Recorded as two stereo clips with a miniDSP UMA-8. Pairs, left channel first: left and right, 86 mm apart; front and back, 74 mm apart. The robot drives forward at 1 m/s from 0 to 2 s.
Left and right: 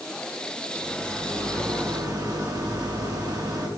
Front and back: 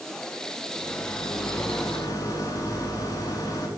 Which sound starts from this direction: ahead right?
A rattle, at 0.8 s.